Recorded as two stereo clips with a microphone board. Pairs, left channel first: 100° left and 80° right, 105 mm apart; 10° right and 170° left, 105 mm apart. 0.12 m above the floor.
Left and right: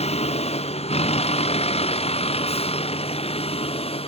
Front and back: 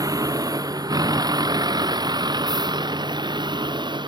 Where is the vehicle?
115° left; by 4.1 s 125° left.